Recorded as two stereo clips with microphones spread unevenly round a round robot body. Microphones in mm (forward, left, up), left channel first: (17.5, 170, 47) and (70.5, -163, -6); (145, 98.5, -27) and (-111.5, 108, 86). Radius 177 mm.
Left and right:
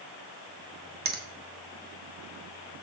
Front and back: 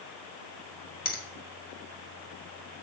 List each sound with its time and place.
1.1 s a finger snap: 30° right, 1.6 m